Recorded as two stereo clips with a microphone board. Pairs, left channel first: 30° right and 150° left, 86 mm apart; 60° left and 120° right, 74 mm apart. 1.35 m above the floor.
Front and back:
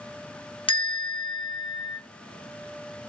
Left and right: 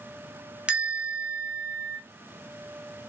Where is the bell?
45° right, 0.9 m.